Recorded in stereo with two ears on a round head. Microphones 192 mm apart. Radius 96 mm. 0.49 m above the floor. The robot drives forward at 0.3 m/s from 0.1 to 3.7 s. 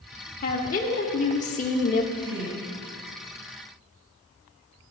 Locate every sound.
0.4 s a woman speaking: 35° left (ahead or behind), 0.9 m; by 2.0 s 30° left (ahead or behind), 1.0 m
2.1 s a woman speaking: 55° right (ahead or behind), 3 m; by 2.7 s 60° right (ahead or behind), 3 m